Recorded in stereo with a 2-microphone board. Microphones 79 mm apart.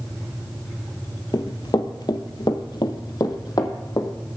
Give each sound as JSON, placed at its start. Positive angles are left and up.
{"t": 1.3, "sound": "running footsteps", "side_deg": 55, "distance_m": 1.1}